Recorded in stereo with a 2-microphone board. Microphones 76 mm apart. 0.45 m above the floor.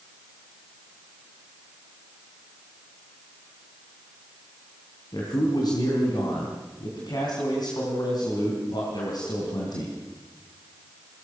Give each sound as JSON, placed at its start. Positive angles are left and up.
{"t": 5.1, "sound": "a man speaking", "side_deg": 65, "distance_m": 4.0}